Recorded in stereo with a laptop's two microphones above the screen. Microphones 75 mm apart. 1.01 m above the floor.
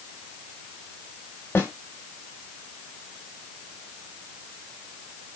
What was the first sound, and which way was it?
A snare drum, 25° left (ahead or behind).